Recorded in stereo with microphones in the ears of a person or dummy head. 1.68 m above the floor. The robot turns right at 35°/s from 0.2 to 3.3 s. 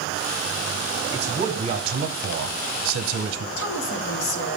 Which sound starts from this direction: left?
A woman speaking, at 3.6 s.